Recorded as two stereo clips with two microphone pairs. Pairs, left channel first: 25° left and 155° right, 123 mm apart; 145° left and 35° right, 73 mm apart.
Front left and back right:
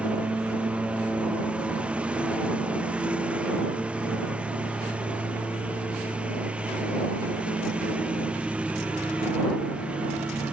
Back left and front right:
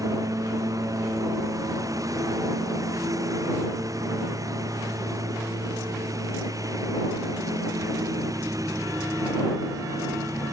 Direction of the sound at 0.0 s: 70° right.